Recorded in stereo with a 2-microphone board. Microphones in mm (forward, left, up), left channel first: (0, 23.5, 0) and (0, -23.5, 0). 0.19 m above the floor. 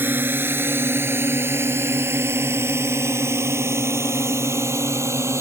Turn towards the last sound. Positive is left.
turn(degrees=-75)  # may be behind; listen again after turning